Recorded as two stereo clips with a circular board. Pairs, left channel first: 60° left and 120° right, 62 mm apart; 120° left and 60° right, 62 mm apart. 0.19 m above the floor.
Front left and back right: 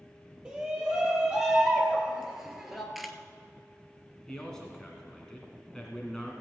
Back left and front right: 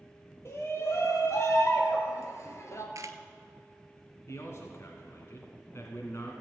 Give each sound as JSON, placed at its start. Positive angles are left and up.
{"t": 0.5, "sound": "a shout", "azimuth_deg": 160, "distance_m": 4.0}
{"t": 3.0, "sound": "a camera shutter", "azimuth_deg": -35, "distance_m": 0.9}
{"t": 4.3, "sound": "a man speaking", "azimuth_deg": 135, "distance_m": 1.8}